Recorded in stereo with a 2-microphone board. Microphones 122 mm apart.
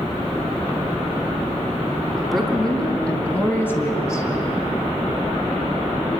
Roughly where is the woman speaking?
Centre.